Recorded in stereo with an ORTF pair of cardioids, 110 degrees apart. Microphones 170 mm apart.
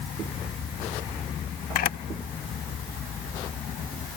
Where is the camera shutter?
55° left, 0.6 m.